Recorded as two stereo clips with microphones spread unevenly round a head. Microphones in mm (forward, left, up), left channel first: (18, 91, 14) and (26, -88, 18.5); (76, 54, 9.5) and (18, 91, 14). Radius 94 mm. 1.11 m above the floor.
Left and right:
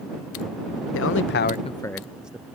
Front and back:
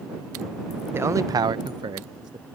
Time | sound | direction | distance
0.9 | a man speaking | 90° left | ?